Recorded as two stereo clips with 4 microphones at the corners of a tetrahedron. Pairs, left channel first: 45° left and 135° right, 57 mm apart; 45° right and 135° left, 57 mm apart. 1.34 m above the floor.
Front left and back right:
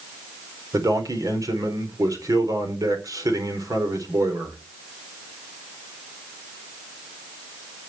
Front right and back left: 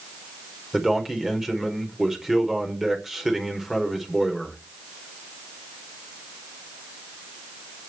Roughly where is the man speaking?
Behind right.